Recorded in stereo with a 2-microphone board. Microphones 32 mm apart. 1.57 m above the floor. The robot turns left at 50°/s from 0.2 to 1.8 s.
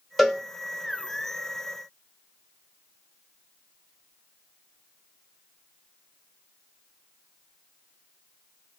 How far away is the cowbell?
About 0.8 m.